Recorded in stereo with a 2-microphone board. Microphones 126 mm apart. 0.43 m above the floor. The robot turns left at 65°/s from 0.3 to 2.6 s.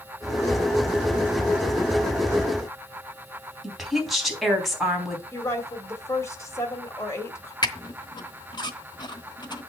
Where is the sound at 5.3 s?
25° left (ahead or behind), 2 m.